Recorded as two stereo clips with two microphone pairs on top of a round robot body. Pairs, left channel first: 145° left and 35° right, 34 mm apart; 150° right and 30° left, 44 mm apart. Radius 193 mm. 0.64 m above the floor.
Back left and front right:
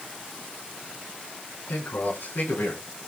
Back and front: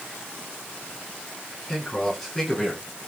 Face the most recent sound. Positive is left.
turn(degrees=130)